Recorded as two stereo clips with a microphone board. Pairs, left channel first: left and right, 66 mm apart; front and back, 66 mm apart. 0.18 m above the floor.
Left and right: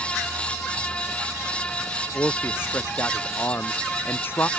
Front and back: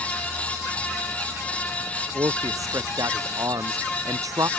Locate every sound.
2.1 s a man speaking: 150° left